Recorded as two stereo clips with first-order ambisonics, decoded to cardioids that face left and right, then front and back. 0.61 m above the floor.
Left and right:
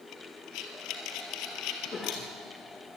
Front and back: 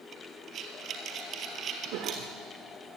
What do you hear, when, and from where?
0.1 s breathing: 120° left, 3 m
1.9 s a cough: 155° left, 1.5 m